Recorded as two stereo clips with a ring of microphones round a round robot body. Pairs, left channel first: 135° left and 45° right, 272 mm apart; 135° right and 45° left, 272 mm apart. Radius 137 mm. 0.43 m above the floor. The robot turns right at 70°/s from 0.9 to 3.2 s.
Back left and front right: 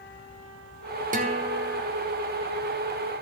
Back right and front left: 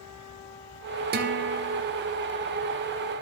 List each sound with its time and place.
1.1 s a guitar: 5° left, 1.2 m; by 1.8 s 55° left, 1.2 m